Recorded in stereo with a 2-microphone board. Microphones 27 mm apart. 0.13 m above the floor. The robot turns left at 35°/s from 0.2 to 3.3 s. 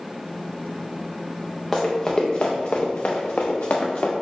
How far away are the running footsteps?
About 1.2 m.